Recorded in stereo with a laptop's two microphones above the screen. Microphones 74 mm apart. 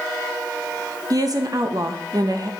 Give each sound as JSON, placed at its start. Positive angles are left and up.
{"t": 1.1, "sound": "a woman speaking", "side_deg": -55, "distance_m": 0.8}